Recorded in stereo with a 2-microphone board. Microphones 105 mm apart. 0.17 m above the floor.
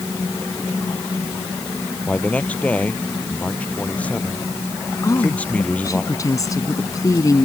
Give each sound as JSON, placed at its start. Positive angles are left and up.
{"t": 2.1, "sound": "a man speaking", "side_deg": 10}
{"t": 5.0, "sound": "a woman speaking", "side_deg": 35}